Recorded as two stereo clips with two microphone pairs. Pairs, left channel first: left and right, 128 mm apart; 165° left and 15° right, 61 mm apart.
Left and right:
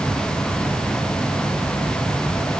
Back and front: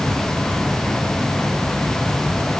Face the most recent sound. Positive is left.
No sound to turn to.